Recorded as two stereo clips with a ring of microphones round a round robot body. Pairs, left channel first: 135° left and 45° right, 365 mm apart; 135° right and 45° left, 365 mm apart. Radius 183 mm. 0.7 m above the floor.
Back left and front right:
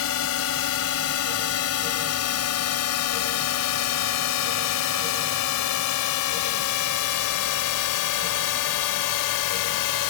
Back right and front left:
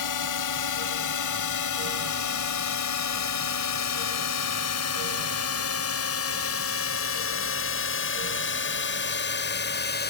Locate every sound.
0.0 s a drone: 170° right; by 10.1 s 165° left